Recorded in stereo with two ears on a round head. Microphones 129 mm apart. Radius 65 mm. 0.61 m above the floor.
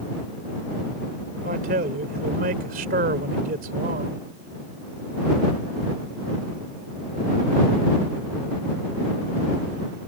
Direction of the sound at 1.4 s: 60° right (ahead or behind).